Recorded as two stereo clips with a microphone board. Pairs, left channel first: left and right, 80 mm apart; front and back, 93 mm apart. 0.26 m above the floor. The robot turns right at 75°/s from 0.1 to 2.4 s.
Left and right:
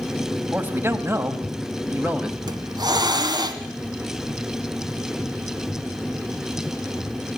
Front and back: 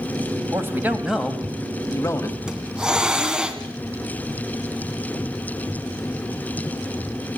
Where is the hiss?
100° right, 1.9 m.